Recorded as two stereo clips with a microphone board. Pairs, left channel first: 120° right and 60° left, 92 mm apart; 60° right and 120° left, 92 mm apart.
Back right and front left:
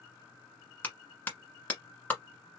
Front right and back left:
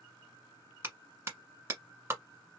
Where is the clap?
170° left, 1.4 m.